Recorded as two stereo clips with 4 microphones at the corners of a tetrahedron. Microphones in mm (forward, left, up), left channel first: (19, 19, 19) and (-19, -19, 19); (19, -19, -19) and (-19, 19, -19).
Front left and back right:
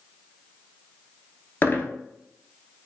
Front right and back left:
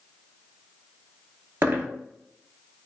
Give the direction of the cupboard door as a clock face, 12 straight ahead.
I don't hear a cupboard door.